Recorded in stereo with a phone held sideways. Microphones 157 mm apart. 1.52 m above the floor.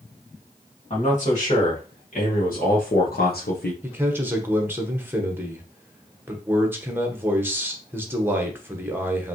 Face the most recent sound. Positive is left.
turn(degrees=-15)  # may be behind; listen again after turning